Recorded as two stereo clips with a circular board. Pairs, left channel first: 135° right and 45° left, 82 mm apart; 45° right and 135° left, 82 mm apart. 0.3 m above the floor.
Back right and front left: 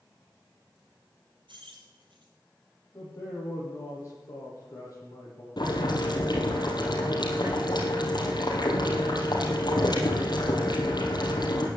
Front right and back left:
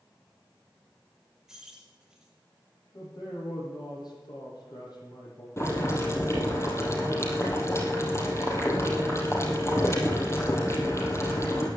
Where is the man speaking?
85° right, 9.5 m.